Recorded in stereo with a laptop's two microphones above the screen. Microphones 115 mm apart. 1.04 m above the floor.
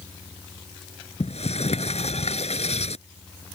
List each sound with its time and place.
1.2 s a sliding door: 75° left (ahead or behind)